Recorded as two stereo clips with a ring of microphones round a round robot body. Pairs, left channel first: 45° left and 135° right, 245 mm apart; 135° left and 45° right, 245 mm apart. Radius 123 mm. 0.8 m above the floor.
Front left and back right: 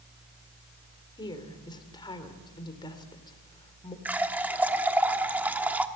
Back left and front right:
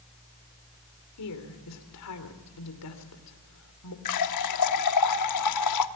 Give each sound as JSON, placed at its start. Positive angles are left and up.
{"t": 1.2, "sound": "a woman speaking", "azimuth_deg": 120, "distance_m": 3.0}
{"t": 4.0, "sound": "a running tap", "azimuth_deg": 140, "distance_m": 1.1}